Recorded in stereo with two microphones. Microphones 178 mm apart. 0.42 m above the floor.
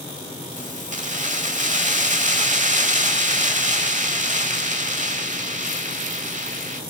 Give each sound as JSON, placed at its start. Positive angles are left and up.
{"t": 0.6, "sound": "keys jangling", "side_deg": -45, "distance_m": 1.1}